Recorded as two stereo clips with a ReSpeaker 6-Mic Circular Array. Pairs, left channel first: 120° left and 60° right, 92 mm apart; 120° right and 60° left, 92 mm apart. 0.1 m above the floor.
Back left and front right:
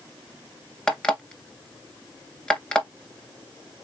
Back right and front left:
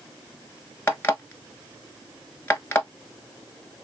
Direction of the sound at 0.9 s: 170° right.